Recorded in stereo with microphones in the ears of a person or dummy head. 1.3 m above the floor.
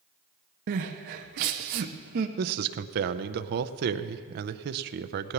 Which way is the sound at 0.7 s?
45° right (ahead or behind).